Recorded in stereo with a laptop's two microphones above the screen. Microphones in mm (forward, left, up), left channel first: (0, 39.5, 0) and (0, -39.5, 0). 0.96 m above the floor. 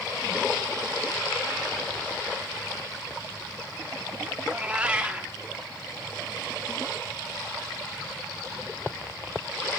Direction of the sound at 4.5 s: 15° right (ahead or behind).